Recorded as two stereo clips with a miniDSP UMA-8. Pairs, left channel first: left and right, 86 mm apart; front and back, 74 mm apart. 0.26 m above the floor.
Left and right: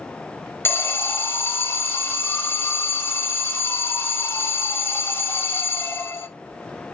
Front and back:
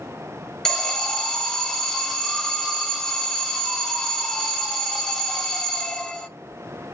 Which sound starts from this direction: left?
An alarm, at 0.7 s.